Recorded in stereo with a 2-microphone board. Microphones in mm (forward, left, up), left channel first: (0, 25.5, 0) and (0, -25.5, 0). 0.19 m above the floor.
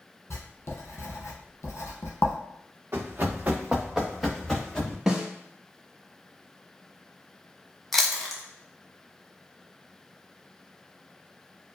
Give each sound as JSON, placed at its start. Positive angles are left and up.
{"t": 0.3, "sound": "writing", "side_deg": 60, "distance_m": 1.0}
{"t": 2.9, "sound": "running footsteps", "side_deg": -50, "distance_m": 0.9}
{"t": 5.1, "sound": "a snare drum", "side_deg": -15, "distance_m": 0.8}
{"t": 7.9, "sound": "chewing", "side_deg": 5, "distance_m": 0.6}